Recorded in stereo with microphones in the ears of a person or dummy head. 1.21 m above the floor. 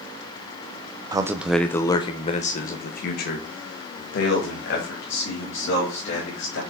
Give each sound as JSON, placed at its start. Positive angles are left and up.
{"t": 1.1, "sound": "a man speaking", "side_deg": -15, "distance_m": 0.6}